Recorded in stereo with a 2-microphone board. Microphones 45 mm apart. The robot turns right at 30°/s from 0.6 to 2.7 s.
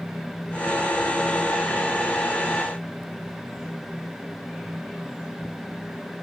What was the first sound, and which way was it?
Only background noise.